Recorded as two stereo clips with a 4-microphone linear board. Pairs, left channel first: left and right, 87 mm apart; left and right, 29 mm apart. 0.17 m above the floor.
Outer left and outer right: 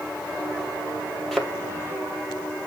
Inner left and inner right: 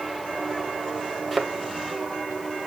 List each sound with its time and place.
1.3 s a thud: centre (ahead or behind), 2.0 m